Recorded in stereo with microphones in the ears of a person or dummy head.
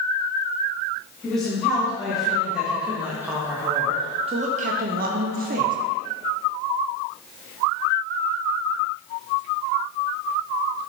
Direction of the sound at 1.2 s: 5° left (ahead or behind).